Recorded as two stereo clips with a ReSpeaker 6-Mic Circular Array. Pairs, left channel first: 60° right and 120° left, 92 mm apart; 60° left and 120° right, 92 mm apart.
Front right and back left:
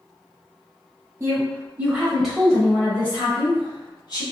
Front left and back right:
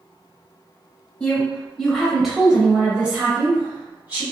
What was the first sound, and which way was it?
A woman speaking, 125° left.